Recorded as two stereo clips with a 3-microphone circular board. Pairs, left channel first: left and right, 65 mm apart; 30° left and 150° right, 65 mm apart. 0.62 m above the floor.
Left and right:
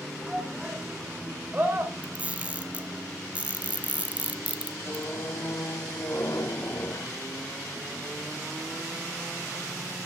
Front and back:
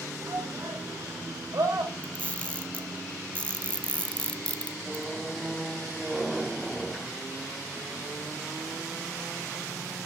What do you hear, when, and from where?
0.2 s a shout: 175° right, 2.5 m; by 3.0 s 135° right, 4.5 m
2.0 s a camera shutter: 30° right, 0.9 m
4.8 s a squeak: 125° left, 1.0 m